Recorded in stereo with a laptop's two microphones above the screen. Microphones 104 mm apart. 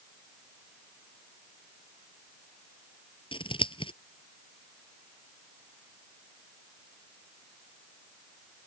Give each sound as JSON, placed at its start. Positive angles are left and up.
{"t": 3.3, "sound": "scissors", "side_deg": 55}